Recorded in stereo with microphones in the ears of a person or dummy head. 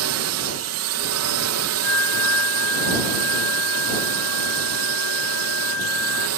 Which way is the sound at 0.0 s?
65° right (ahead or behind).